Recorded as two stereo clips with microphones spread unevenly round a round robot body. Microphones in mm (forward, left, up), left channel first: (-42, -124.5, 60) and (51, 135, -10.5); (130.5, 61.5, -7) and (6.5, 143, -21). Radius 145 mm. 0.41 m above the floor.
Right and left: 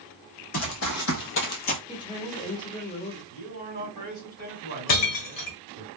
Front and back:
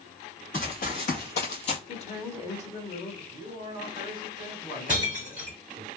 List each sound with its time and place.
0.5 s running footsteps: 85° right, 1.4 m; by 1.8 s 65° right, 0.5 m
1.9 s a woman speaking: 25° right, 0.9 m
3.3 s a man speaking: 70° right, 1.6 m
4.9 s breaking glass: 130° right, 1.0 m